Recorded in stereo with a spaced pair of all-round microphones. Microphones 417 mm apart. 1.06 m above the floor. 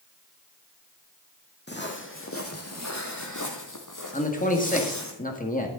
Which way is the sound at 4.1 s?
20° left (ahead or behind).